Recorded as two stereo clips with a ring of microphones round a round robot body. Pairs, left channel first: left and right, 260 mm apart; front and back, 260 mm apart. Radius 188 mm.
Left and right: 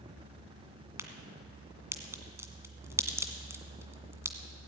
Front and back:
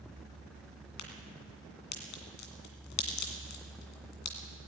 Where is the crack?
10° right, 2.0 m.